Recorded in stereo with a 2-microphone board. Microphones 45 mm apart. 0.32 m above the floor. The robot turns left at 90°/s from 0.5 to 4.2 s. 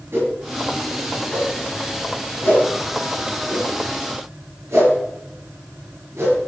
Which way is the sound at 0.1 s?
60° right (ahead or behind).